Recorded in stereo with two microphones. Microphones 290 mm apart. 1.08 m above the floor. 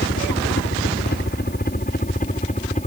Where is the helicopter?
40° left (ahead or behind); by 2.9 s 25° left (ahead or behind).